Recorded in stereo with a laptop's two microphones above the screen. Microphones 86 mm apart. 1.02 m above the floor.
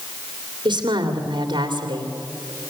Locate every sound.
0.7 s a woman speaking: 60° right (ahead or behind), 2.5 m